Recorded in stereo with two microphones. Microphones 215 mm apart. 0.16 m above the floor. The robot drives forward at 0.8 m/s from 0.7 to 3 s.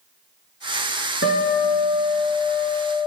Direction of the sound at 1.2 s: 65° left (ahead or behind).